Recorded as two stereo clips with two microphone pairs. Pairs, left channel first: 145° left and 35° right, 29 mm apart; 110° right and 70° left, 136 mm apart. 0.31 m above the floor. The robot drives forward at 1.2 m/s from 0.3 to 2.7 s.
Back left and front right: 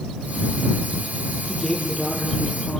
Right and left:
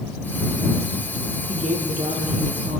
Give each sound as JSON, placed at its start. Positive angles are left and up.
{"t": 1.5, "sound": "a woman speaking", "azimuth_deg": 55, "distance_m": 8.5}